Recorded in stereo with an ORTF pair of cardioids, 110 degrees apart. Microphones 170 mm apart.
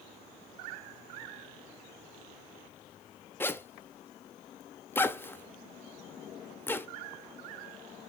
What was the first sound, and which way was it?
A zipper, 10° left.